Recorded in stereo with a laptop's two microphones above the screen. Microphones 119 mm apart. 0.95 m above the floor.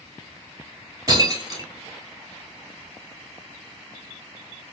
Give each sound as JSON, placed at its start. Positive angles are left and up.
{"t": 1.1, "sound": "breaking glass", "side_deg": -30, "distance_m": 1.1}